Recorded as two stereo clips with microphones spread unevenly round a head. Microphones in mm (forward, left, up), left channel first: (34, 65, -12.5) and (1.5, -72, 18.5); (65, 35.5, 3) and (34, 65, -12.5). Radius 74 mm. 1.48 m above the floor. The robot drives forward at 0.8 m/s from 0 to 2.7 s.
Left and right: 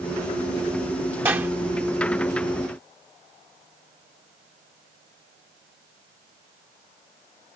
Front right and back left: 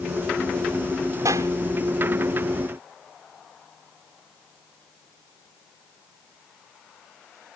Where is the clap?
Straight behind.